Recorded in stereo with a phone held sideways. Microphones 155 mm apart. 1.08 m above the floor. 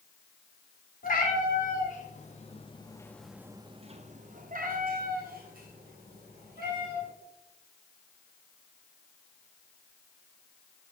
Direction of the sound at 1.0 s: 60° left (ahead or behind).